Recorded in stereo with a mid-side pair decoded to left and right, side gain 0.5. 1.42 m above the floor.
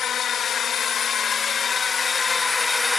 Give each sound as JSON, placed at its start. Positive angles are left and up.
{"t": 0.0, "sound": "a drone", "azimuth_deg": 50}